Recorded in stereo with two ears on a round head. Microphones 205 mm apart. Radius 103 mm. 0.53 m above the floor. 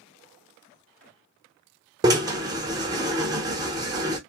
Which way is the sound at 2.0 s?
15° right (ahead or behind).